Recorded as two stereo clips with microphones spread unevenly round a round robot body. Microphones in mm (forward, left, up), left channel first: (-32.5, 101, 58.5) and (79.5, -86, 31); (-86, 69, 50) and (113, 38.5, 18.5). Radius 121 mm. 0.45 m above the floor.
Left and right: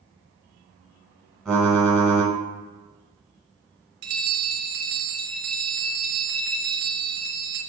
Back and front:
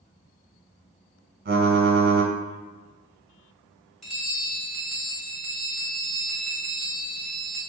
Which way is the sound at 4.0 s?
95° right.